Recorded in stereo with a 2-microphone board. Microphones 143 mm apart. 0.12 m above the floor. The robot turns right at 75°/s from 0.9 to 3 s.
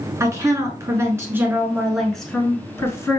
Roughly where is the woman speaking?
Right.